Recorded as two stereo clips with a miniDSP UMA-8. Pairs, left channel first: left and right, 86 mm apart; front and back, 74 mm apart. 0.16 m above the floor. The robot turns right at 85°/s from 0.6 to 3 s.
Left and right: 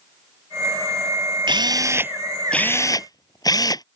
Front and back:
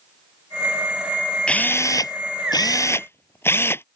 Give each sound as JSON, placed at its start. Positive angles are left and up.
{"t": 1.5, "sound": "a drill", "azimuth_deg": -75}